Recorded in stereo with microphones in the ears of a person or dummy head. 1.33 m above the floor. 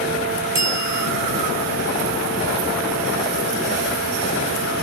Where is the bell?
15° right (ahead or behind), 4 m.